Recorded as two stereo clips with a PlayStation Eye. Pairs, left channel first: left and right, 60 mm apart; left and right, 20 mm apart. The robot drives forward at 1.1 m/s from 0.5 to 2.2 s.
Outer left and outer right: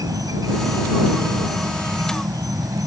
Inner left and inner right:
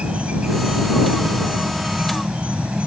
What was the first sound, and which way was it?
An insect, 85° right.